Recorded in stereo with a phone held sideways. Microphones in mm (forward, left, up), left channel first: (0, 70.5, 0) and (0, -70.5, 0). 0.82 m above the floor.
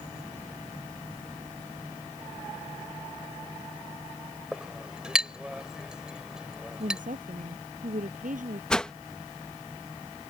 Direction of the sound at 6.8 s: 70° right (ahead or behind).